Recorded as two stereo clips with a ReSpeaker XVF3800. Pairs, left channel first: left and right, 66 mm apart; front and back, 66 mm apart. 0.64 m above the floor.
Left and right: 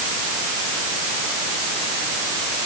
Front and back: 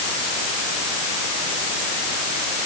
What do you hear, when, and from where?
Only background noise.